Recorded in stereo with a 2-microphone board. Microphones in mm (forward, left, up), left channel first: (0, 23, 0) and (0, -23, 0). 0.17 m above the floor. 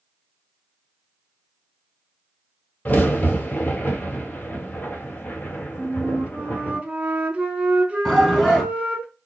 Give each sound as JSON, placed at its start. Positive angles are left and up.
{"t": 2.9, "sound": "a crack", "side_deg": 35, "distance_m": 1.2}
{"t": 5.8, "sound": "a flute", "side_deg": -30, "distance_m": 0.8}
{"t": 8.1, "sound": "a shout", "side_deg": 5, "distance_m": 1.2}